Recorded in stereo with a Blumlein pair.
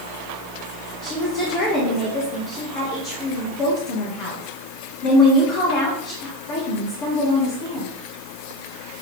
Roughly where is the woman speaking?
Ahead left.